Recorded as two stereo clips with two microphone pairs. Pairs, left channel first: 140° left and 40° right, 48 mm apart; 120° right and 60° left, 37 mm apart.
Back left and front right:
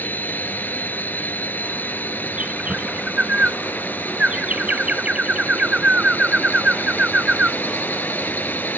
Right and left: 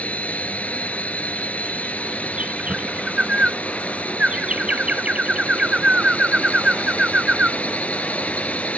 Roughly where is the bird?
Ahead.